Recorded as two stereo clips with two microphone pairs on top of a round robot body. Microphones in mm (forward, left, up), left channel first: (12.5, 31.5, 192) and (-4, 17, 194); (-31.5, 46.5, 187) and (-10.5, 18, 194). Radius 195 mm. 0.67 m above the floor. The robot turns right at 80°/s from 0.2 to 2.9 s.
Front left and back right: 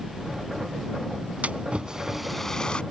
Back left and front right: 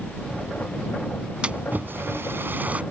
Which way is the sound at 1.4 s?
115° right.